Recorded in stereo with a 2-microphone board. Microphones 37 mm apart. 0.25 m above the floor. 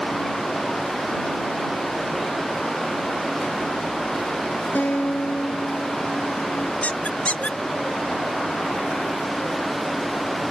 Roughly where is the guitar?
Left.